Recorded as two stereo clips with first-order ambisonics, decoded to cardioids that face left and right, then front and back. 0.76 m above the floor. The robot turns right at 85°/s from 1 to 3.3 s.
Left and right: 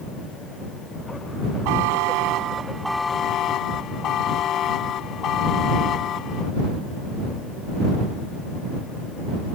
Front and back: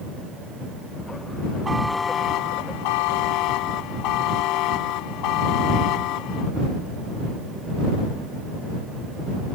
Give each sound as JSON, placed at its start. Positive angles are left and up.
{"t": 1.6, "sound": "a buzzer", "azimuth_deg": -105}